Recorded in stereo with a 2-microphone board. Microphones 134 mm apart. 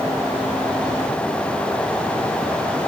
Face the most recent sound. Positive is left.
No sound to turn to.